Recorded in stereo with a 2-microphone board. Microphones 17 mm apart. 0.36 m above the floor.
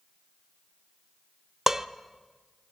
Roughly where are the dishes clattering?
Right.